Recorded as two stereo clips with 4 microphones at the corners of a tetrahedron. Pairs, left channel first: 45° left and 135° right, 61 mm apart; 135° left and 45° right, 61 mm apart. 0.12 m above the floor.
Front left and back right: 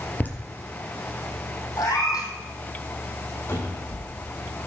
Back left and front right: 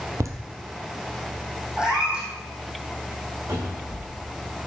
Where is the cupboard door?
5° right, 6.5 m.